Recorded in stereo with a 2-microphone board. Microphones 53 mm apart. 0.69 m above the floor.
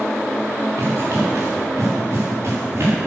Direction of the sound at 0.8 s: 60° right (ahead or behind).